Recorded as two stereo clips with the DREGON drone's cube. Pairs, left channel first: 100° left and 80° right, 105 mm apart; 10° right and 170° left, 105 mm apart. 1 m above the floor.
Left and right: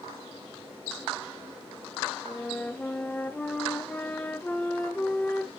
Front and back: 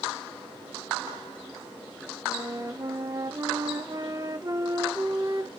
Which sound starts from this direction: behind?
A flute, at 2.2 s.